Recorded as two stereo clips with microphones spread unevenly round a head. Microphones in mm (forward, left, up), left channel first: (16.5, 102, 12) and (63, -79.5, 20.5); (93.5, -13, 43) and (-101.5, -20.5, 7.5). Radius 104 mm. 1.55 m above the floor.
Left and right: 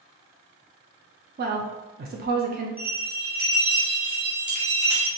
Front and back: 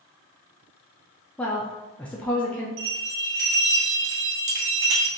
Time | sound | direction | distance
1.4 | a woman speaking | 70° right | 0.6 m
2.8 | a bell | 160° right | 1.2 m